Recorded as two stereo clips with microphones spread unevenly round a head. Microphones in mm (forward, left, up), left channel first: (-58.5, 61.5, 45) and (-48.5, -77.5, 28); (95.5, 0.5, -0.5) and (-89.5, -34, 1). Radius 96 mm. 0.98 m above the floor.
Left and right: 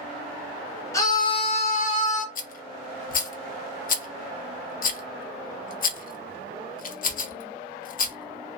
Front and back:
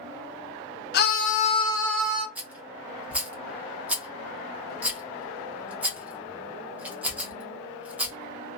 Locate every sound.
0.9 s a scream: 20° left, 0.8 m; by 2.2 s 110° left, 0.7 m
2.4 s a rattle: 105° left, 0.6 m